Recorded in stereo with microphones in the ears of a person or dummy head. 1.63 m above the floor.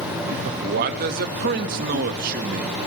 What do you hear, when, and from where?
0.5 s a man speaking: 55° right (ahead or behind), 1.1 m